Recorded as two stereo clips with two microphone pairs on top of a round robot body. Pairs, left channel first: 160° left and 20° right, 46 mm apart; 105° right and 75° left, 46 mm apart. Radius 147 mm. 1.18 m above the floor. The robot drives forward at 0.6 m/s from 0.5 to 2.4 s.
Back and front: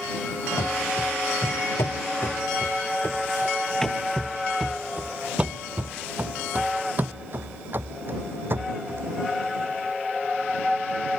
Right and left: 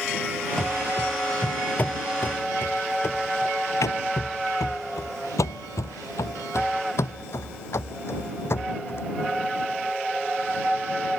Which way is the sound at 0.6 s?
175° left.